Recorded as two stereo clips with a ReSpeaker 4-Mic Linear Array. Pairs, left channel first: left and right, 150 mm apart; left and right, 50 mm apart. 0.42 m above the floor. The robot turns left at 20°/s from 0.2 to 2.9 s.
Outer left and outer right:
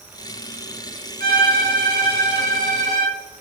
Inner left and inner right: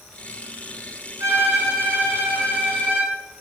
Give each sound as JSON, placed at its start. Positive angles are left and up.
{"t": 1.2, "sound": "a violin", "azimuth_deg": -100, "distance_m": 7.0}